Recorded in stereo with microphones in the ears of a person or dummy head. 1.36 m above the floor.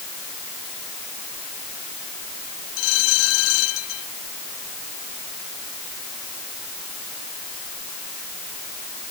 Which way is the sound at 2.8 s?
75° left (ahead or behind).